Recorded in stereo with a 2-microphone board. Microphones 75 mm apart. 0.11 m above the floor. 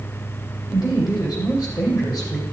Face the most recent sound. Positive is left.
turn(degrees=55)  # may be behind; listen again after turning